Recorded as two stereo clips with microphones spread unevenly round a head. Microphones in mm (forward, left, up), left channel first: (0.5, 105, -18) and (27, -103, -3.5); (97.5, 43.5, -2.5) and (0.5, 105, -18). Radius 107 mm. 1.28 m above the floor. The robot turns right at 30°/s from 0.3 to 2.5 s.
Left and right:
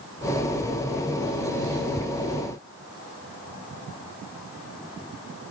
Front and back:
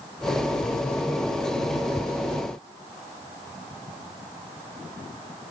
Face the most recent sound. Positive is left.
No sound to turn to.